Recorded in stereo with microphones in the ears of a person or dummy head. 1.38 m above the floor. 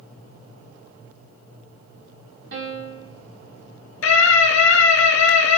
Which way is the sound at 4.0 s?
70° left (ahead or behind).